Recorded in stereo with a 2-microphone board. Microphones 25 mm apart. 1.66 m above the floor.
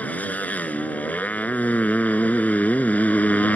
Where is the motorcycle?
80° left.